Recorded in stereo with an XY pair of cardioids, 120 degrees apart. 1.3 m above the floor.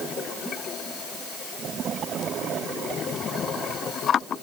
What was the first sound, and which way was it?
Only background noise.